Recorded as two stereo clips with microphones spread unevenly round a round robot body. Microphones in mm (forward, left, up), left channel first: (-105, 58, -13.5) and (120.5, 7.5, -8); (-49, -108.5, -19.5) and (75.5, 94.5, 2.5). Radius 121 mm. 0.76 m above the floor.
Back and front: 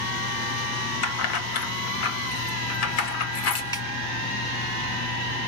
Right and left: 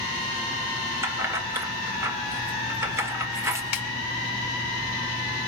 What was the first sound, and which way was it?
Keys jangling, 140° left.